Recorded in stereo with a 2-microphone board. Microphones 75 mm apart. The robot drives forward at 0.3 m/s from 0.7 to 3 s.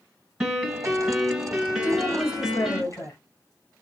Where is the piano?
10° right (ahead or behind), 1.3 m; by 2.8 s 5° right (ahead or behind), 1.9 m.